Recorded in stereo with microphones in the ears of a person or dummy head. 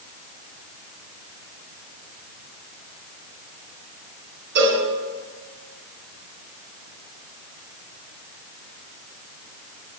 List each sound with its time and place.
4.5 s a cowbell: 70° right (ahead or behind), 3 m